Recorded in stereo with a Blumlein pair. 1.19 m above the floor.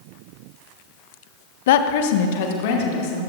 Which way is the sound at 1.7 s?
55° left.